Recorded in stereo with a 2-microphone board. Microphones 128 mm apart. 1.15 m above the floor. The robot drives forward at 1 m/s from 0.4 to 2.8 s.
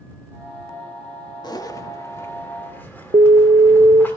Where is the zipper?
35° left (ahead or behind), 1.1 m; by 4.1 s 15° left (ahead or behind), 2.5 m.